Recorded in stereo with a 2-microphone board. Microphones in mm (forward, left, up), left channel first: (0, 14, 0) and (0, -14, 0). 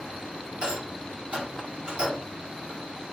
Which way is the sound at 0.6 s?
35° right (ahead or behind).